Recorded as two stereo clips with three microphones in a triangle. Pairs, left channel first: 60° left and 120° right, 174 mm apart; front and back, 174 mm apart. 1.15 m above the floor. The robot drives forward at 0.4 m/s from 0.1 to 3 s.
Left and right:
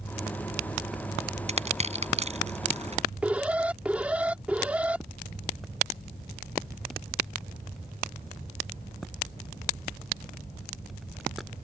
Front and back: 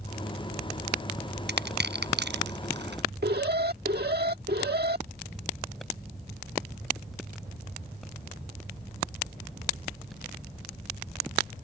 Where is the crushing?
170° right.